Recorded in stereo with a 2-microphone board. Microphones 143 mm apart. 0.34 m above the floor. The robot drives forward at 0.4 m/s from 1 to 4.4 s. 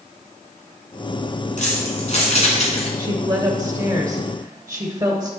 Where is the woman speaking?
30° right (ahead or behind), 0.9 m; by 5.3 s 25° right (ahead or behind), 1.1 m.